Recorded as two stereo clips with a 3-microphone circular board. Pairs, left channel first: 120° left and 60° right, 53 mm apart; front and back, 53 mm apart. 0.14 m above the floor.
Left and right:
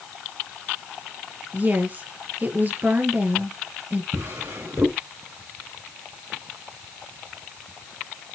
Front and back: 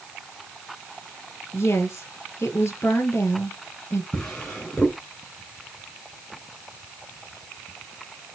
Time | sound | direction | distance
1.5 | a woman speaking | 15° right | 3 m
4.1 | a drawer | 75° right | 4.5 m